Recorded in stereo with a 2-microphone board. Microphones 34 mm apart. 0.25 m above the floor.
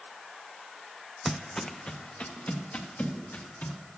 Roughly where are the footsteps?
Centre.